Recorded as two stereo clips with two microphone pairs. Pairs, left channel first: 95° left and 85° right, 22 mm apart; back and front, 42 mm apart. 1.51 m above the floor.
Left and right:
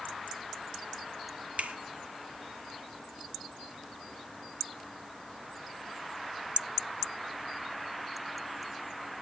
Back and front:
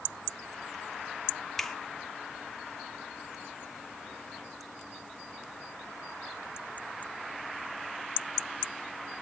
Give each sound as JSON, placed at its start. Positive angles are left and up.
{"t": 1.6, "sound": "a finger snap", "azimuth_deg": -100, "distance_m": 0.9}